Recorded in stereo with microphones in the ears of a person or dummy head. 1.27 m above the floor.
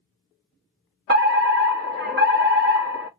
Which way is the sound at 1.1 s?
50° right (ahead or behind).